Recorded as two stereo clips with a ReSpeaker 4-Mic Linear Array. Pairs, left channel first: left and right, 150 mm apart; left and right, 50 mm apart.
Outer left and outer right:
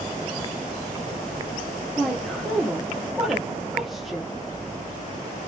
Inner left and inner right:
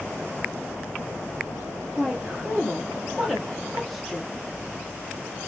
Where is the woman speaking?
Centre (ahead or behind), 0.7 m.